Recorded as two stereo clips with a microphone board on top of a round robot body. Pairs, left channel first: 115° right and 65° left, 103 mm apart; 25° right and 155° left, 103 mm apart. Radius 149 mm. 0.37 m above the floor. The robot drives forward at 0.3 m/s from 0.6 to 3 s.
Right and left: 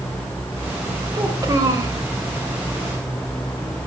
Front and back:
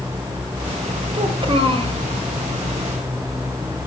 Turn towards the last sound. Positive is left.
turn(degrees=140)